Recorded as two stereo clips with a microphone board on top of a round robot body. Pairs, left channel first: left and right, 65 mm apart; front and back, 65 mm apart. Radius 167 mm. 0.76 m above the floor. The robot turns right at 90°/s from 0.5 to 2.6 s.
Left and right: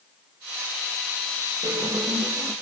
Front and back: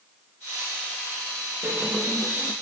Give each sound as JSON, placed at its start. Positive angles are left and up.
{"t": 1.6, "sound": "a squeak", "azimuth_deg": -135, "distance_m": 5.5}